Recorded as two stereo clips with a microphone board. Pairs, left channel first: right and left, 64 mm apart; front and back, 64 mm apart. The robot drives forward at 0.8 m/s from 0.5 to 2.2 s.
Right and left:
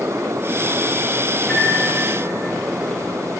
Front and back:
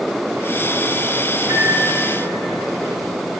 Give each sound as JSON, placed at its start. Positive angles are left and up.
{"t": 1.4, "sound": "a microwave", "azimuth_deg": -155, "distance_m": 1.9}